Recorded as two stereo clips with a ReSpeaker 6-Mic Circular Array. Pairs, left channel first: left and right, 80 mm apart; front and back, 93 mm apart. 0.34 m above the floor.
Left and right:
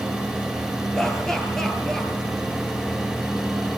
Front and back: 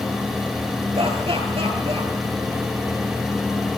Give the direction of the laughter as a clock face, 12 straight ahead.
6 o'clock.